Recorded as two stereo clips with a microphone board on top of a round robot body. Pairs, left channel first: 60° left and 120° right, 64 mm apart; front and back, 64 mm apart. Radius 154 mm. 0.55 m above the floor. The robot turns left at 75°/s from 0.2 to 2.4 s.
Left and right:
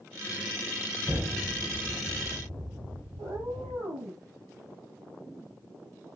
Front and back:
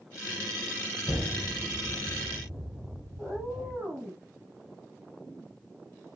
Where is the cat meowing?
95° right, 9 m.